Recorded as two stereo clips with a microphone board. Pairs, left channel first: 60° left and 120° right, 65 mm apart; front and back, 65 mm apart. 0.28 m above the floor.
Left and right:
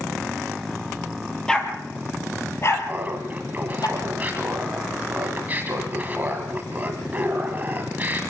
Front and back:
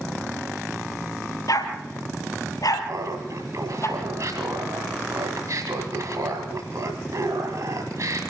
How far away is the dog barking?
About 2.5 m.